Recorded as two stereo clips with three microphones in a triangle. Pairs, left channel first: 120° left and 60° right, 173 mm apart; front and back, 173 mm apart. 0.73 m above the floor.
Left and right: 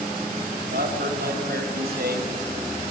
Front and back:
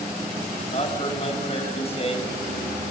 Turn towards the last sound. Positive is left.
turn(degrees=-50)